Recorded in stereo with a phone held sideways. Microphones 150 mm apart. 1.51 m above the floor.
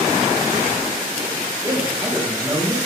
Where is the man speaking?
20° right (ahead or behind), 4 m.